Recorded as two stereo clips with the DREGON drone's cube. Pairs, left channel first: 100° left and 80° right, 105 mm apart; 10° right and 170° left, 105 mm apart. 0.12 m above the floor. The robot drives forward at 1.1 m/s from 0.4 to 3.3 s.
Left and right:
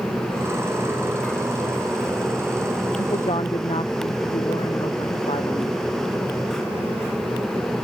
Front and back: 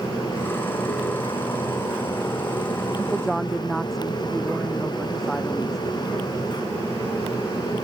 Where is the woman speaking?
75° left; by 5.8 s 80° left.